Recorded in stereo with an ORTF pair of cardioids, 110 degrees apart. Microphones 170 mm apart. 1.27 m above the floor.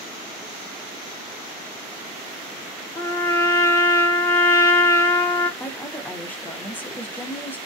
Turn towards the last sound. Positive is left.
turn(degrees=10)